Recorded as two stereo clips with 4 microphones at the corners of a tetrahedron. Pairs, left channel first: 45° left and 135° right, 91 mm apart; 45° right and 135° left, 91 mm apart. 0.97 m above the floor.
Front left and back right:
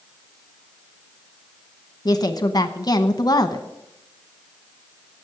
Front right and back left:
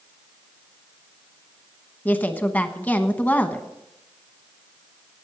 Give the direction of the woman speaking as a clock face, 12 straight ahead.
11 o'clock.